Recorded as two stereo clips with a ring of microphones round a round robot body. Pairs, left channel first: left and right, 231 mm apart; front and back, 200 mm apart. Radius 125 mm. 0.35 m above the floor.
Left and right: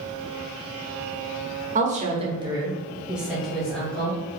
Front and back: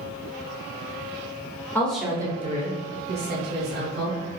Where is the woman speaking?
70° right, 0.9 m; by 4.2 s 175° left, 2 m.